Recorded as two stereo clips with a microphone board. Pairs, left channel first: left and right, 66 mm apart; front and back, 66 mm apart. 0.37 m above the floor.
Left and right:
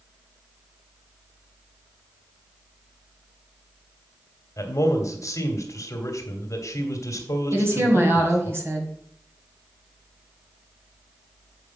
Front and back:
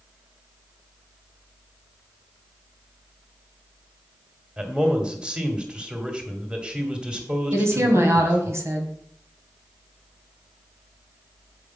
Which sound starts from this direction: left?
A man speaking, at 4.6 s.